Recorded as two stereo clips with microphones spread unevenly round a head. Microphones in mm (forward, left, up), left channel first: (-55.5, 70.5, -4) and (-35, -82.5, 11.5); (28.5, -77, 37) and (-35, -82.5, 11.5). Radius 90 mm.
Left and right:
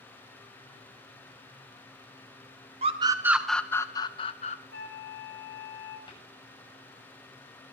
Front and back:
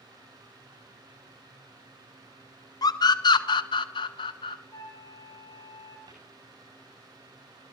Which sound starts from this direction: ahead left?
A flute, at 4.7 s.